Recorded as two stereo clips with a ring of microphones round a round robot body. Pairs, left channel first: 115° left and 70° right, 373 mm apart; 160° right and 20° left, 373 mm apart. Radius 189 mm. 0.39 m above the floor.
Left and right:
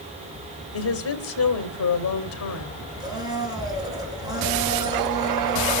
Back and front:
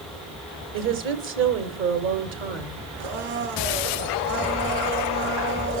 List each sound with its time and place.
0.7 s a woman speaking: 70° left, 2 m
3.0 s a blender: 15° left, 3 m